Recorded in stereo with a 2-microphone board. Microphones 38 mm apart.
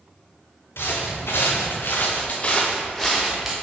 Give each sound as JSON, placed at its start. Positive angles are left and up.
{"t": 0.8, "sound": "footsteps", "side_deg": 80, "distance_m": 2.0}